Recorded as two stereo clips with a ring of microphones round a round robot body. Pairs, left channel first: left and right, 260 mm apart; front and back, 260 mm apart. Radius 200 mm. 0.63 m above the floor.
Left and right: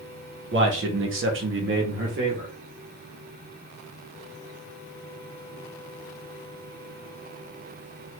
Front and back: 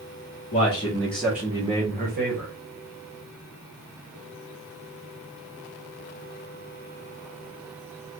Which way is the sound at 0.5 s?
55° right.